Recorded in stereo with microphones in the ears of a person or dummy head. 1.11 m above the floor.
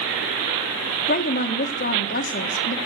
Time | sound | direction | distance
1.1 | a woman speaking | 45° left (ahead or behind) | 1.9 m